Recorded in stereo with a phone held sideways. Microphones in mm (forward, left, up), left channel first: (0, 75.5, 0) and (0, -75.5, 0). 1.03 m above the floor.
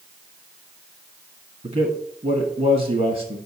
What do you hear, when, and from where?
1.6 s a man speaking: 60° right (ahead or behind), 1.5 m